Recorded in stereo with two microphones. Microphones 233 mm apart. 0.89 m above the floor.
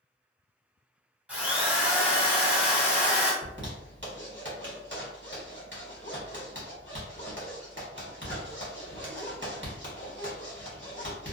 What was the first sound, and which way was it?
A drill, 5° right (ahead or behind).